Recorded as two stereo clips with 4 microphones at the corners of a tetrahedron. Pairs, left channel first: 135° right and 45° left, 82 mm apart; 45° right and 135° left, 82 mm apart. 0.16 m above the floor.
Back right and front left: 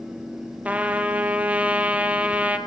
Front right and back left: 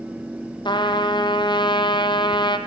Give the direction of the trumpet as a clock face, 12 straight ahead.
1 o'clock.